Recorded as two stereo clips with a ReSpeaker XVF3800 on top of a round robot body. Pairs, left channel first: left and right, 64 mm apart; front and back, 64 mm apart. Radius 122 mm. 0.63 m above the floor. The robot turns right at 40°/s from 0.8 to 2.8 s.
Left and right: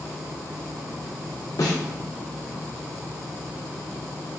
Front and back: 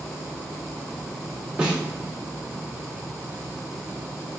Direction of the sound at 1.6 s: 105° left.